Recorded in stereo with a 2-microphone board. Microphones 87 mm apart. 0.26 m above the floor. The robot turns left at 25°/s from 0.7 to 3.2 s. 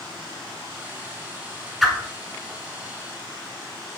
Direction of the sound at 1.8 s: Centre (ahead or behind).